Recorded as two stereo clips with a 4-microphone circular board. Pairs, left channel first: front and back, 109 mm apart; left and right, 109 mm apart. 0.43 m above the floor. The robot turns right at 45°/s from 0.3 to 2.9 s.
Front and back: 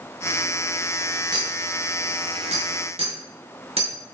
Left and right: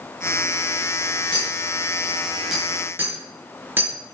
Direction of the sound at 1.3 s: 130° left.